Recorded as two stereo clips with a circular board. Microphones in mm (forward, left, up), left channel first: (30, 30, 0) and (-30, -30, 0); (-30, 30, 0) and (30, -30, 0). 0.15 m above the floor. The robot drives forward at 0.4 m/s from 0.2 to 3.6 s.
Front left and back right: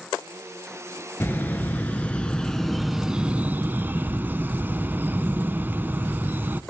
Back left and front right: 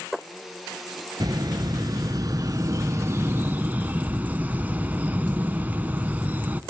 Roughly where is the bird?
Ahead.